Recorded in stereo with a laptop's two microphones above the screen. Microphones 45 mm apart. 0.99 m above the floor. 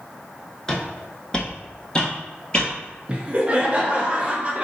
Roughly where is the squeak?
I don't hear a squeak.